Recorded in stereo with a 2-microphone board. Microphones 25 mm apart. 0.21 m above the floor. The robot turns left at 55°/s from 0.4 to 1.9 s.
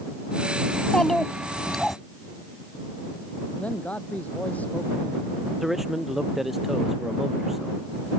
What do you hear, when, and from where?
0.7 s a child speaking: 60° left; by 2.0 s straight ahead
3.6 s a man speaking: 70° left (ahead or behind)
5.6 s a man speaking: 5° right (ahead or behind)